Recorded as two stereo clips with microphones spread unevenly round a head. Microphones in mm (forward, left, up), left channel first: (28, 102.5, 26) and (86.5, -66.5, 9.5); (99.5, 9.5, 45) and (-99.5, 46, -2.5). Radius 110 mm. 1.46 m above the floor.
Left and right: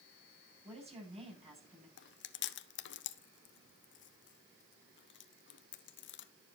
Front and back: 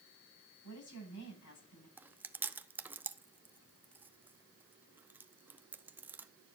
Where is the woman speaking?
15° right, 9.5 m.